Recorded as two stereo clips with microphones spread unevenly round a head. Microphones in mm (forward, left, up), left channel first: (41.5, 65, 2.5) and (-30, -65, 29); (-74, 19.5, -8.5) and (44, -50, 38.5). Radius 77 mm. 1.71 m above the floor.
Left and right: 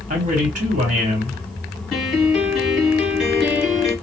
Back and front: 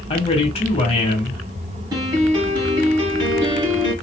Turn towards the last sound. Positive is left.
turn(degrees=-35)